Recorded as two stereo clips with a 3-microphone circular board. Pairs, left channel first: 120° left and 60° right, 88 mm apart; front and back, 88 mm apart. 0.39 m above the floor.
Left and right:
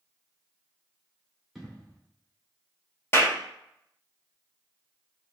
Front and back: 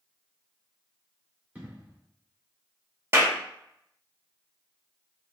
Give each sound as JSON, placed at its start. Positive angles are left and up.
{"t": 1.6, "sound": "an explosion", "azimuth_deg": -150, "distance_m": 1.5}
{"t": 3.1, "sound": "a clap", "azimuth_deg": 155, "distance_m": 1.0}